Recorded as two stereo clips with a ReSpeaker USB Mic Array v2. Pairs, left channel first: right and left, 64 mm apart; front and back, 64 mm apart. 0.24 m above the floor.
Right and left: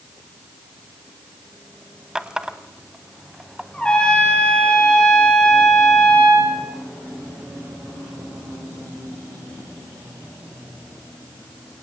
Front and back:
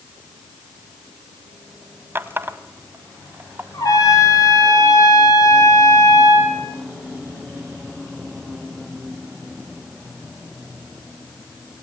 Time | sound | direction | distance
2.1 | a running tap | 165° left | 1.1 m
3.7 | a trumpet | 15° right | 6.5 m